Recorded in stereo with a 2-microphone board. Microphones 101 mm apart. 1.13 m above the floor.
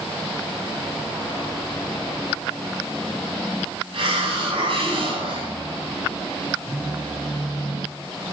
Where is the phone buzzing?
30° right (ahead or behind), 6 m.